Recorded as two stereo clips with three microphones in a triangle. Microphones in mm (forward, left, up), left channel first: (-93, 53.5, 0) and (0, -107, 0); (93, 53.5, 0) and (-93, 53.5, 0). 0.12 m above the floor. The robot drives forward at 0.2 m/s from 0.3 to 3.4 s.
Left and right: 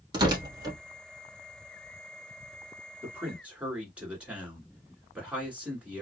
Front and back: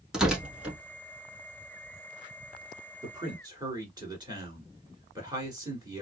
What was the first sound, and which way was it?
Tearing paper, 95° right.